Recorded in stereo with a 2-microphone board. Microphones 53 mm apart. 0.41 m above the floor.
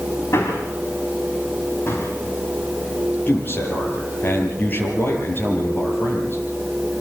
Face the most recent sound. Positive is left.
turn(degrees=40)  # may be behind; listen again after turning